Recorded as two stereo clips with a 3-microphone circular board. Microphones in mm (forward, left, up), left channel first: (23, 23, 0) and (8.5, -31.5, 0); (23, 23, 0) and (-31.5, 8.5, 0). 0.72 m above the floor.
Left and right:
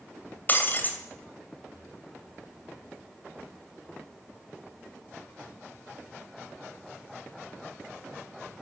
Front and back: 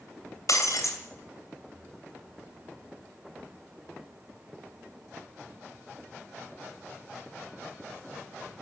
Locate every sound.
0.5 s breaking glass: 20° left, 2.5 m